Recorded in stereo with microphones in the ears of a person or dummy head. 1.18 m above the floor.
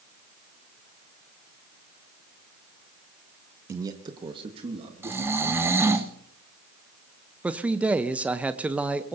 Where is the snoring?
15° right (ahead or behind), 1.0 m.